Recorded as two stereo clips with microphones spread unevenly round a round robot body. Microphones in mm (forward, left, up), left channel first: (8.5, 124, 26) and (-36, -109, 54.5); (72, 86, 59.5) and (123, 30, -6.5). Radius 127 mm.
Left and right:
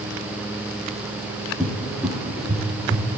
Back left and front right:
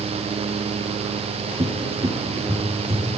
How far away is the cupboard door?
About 5.5 m.